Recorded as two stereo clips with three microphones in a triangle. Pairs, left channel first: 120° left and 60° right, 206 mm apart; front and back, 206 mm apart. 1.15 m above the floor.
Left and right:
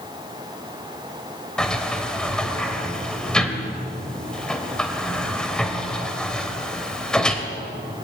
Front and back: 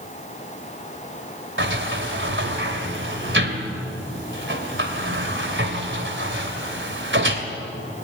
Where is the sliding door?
155° right, 2.5 m.